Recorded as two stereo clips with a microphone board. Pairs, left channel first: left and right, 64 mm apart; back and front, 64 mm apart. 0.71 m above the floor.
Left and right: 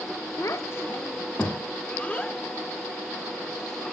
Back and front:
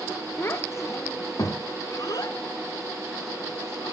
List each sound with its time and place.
0.4 s a child speaking: 130° left, 1.3 m; by 3.9 s 170° left, 3.5 m